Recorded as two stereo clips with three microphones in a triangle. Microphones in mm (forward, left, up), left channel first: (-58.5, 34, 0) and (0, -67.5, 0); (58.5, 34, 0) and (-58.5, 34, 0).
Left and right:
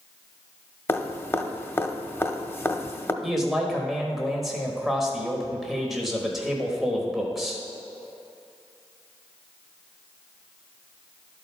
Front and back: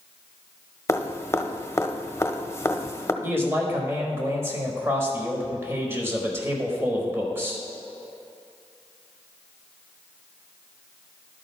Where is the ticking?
No ticking in this recording.